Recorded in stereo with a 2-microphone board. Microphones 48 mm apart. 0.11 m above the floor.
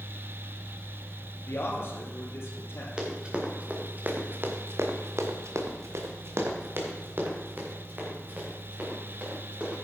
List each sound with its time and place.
1.5 s a man speaking: 55° left (ahead or behind), 3 m; by 2.9 s 65° left (ahead or behind), 3.5 m
3.0 s running footsteps: 20° right (ahead or behind), 3 m; by 9.8 s 35° right (ahead or behind), 6.5 m